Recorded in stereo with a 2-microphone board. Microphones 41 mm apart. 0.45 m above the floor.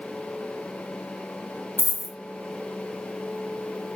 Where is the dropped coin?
75° left (ahead or behind), 1.3 m.